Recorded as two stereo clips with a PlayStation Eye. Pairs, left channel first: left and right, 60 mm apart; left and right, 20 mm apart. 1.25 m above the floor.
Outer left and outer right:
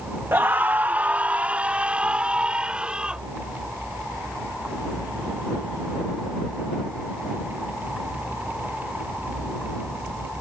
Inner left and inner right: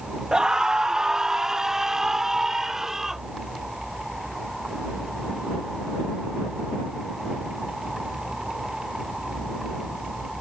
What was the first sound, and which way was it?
A scream, 45° right (ahead or behind).